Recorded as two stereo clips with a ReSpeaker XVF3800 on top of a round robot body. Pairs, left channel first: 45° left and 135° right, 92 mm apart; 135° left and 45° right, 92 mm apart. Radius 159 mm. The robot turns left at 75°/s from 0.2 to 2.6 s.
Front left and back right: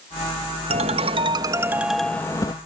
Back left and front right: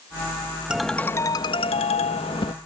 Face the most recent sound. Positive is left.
turn(degrees=90)